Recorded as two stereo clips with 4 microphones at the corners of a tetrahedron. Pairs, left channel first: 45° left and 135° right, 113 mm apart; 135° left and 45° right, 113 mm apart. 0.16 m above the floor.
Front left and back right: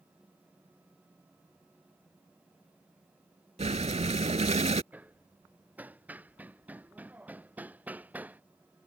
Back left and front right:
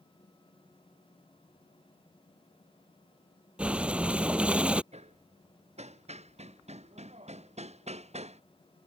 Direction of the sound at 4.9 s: 60° right.